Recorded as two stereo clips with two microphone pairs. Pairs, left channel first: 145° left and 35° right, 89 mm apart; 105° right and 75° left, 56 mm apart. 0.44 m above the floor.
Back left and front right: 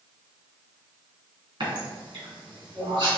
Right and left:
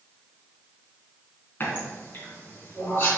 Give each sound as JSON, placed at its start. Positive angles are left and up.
{"t": 1.6, "sound": "a running tap", "azimuth_deg": -55, "distance_m": 3.0}